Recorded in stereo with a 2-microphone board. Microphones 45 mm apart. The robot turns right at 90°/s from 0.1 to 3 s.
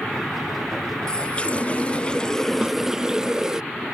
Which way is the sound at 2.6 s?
20° right (ahead or behind).